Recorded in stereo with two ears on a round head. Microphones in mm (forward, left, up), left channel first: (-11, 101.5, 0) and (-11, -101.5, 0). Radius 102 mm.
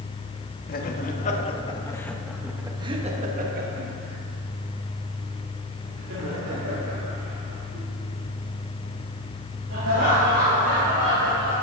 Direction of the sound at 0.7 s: 45° left (ahead or behind).